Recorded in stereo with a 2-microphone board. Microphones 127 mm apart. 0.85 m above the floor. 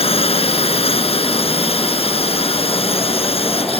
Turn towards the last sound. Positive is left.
turn(degrees=50)  # may be behind; listen again after turning